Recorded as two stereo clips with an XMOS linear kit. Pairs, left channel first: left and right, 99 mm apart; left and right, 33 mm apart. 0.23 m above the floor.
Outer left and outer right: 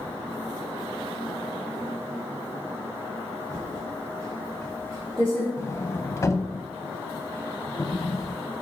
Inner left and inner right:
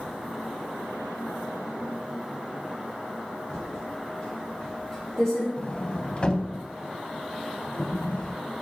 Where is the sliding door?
30° left (ahead or behind), 0.5 m.